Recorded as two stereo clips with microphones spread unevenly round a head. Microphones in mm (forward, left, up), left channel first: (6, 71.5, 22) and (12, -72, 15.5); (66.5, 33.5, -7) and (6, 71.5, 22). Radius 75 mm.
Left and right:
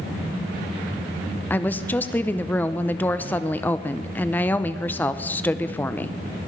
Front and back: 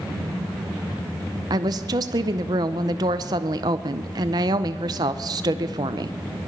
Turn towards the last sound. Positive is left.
turn(degrees=170)